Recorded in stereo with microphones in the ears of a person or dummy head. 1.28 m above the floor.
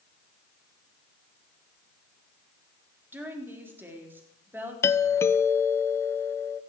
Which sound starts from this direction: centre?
A woman speaking, at 3.1 s.